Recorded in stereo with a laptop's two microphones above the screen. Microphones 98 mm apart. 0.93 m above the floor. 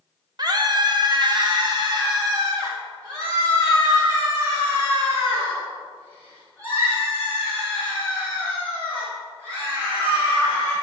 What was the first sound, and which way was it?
A scream, 40° right (ahead or behind).